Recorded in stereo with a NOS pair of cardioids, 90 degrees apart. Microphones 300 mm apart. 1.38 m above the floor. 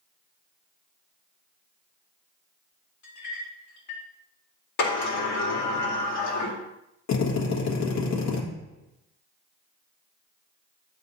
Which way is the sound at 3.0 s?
65° left.